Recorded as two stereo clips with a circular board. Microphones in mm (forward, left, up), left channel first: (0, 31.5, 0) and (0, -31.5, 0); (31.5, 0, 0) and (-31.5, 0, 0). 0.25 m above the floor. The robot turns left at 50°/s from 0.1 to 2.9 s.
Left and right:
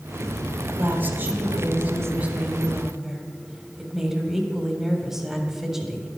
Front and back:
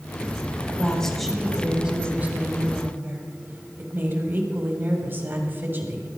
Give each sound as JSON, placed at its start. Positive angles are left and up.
{"t": 0.7, "sound": "a woman speaking", "azimuth_deg": -60, "distance_m": 1.7}